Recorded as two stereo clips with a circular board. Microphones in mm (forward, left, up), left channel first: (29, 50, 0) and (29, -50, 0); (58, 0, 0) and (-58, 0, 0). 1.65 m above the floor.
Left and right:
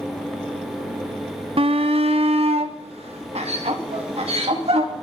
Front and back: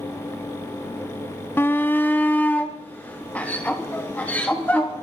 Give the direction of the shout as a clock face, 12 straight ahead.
2 o'clock.